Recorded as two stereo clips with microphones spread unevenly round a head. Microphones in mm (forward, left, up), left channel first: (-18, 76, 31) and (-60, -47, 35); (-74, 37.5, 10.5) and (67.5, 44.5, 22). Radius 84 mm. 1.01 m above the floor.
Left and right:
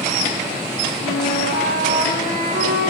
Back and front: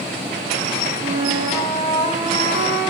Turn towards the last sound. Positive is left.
turn(degrees=65)